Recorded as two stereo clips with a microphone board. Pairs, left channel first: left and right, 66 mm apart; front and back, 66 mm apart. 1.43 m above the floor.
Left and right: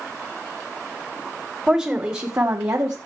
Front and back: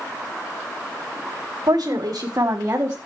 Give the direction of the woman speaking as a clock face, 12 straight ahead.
5 o'clock.